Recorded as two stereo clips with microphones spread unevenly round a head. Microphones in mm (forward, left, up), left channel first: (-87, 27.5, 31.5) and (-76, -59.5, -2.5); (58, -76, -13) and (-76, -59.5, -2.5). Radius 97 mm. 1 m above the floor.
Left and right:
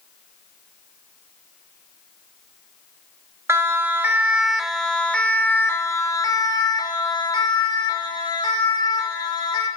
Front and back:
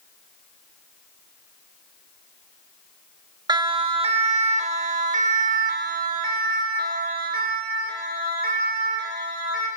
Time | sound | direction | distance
3.5 | a siren | 130° right | 2.5 m